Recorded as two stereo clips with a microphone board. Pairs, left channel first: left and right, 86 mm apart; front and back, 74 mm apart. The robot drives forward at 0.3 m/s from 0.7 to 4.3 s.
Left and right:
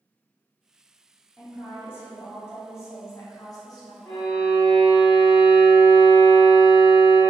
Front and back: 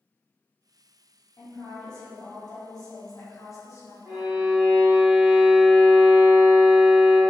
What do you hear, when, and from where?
1.4 s a woman speaking: 20° left, 1.3 m; by 4.0 s 50° left, 0.6 m
4.0 s a violin: 150° left, 1.3 m; by 7.2 s 155° left, 1.3 m